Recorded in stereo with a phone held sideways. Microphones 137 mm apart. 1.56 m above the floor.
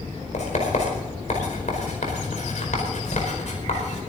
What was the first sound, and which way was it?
Writing, 60° left (ahead or behind).